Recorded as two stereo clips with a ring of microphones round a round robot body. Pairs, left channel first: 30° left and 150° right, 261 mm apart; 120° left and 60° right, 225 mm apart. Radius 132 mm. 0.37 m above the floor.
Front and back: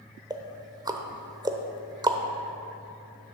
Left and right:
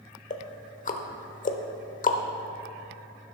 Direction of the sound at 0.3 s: 145° left.